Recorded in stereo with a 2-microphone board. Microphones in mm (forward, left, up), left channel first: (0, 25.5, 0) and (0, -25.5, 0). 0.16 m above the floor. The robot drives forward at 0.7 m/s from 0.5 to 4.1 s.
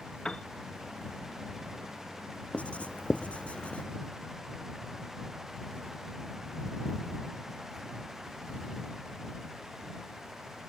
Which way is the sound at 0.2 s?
15° left (ahead or behind).